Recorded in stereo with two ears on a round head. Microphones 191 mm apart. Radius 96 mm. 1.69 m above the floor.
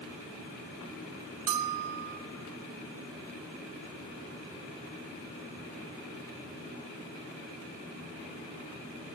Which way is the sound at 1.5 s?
70° right (ahead or behind).